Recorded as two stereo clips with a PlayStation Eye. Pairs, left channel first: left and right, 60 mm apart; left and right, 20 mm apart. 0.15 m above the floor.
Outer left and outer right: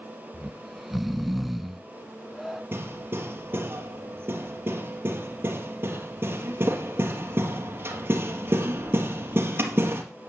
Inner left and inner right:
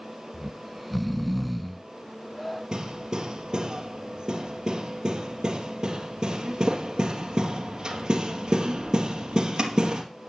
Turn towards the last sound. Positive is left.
turn(degrees=-40)  # may be behind; listen again after turning